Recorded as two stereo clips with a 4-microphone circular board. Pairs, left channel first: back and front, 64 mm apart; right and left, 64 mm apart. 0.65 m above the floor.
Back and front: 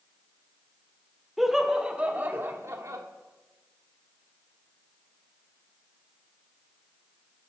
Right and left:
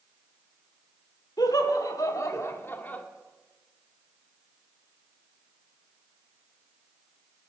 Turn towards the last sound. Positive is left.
turn(degrees=-25)